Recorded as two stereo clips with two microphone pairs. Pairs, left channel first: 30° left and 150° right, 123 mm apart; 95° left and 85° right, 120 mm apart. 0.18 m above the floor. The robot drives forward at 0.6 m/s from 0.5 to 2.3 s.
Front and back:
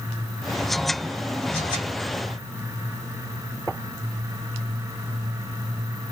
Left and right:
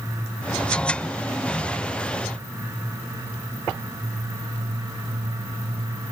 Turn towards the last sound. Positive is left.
No sound to turn to.